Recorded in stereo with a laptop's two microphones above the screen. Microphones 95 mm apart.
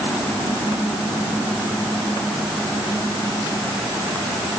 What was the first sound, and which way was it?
Only background noise.